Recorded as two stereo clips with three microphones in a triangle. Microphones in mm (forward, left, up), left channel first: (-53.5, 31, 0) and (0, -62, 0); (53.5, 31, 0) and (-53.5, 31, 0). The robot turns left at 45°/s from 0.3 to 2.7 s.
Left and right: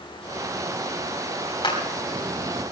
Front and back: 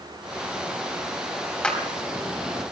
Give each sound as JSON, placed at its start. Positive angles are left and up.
{"t": 1.6, "sound": "a clap", "azimuth_deg": 80, "distance_m": 4.0}